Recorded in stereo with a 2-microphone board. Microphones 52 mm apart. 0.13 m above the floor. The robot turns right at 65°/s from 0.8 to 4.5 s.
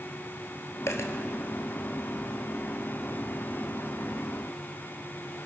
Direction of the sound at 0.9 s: 60° left (ahead or behind).